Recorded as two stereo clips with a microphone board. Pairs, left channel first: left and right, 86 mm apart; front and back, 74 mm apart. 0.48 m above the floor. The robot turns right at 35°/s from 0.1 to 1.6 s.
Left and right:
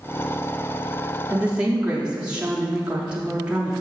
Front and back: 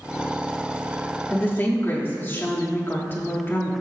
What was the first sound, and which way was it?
A woman speaking, 35° right.